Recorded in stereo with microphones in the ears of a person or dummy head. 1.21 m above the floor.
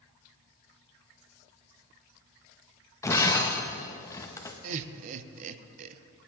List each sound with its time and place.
3.0 s breaking glass: 20° left (ahead or behind), 0.7 m
4.6 s laughter: 40° right (ahead or behind), 0.6 m